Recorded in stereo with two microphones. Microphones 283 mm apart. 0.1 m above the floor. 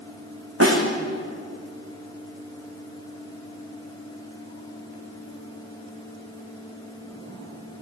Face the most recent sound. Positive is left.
turn(degrees=-55)  # may be behind; listen again after turning